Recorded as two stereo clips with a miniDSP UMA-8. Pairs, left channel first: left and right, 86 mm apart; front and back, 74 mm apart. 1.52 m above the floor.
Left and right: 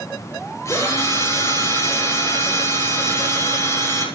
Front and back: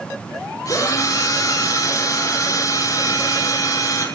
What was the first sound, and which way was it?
A drill, 35° left.